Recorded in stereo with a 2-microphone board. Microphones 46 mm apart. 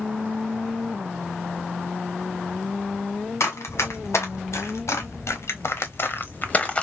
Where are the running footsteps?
75° left (ahead or behind), 2.5 m; by 6.8 s 20° left (ahead or behind), 1.1 m.